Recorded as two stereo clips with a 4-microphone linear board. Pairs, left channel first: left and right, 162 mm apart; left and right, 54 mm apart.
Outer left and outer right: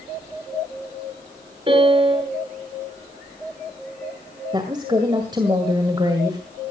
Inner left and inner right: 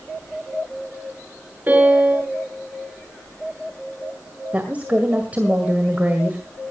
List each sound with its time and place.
1.7 s a piano: 30° right (ahead or behind), 6 m
4.5 s a woman speaking: 25° right (ahead or behind), 1.9 m